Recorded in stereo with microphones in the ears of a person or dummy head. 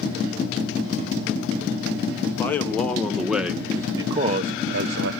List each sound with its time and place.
2.3 s a man speaking: 15° left (ahead or behind), 2 m; by 5.1 s 70° right (ahead or behind), 1.1 m